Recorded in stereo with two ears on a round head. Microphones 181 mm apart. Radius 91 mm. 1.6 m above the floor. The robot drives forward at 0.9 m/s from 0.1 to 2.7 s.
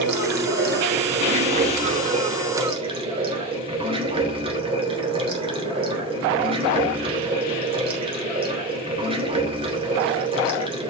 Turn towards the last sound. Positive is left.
turn(degrees=-30)  # may be behind; listen again after turning